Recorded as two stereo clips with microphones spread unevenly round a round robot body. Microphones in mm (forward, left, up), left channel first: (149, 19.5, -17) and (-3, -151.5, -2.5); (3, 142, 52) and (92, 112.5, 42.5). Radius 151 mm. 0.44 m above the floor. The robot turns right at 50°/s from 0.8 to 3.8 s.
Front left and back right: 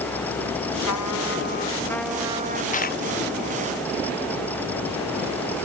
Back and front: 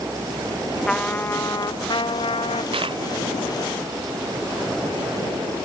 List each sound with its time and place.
0.9 s a trumpet: 80° left; by 2.6 s 165° left
2.7 s a dropped coin: 5° right; by 3.0 s 10° left